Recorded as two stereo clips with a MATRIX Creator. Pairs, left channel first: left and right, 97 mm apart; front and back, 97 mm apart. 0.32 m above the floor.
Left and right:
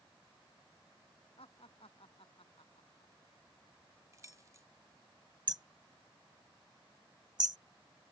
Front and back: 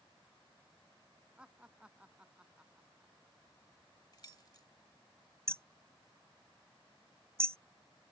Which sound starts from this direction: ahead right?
Keys jangling, at 4.1 s.